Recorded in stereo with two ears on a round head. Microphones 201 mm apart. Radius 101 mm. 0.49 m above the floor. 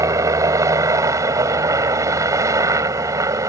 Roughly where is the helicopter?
Centre.